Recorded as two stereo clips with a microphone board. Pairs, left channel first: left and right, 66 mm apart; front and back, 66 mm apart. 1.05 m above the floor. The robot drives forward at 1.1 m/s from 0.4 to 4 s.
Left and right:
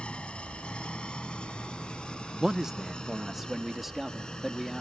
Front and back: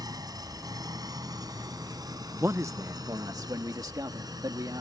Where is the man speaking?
165° right; by 4.8 s 175° right.